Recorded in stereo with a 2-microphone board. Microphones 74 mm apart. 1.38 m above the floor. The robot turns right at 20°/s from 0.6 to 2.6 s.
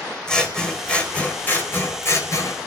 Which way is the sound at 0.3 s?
10° left.